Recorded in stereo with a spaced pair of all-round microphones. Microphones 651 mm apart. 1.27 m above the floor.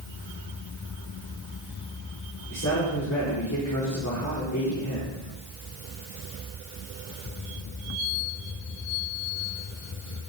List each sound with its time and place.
2.5 s a man speaking: 20° left (ahead or behind), 4.5 m